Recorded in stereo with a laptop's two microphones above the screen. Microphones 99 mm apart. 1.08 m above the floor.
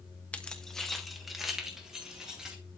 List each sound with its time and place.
0.3 s keys jangling: 15° left (ahead or behind), 0.8 m; by 2.6 s 5° right (ahead or behind), 2.5 m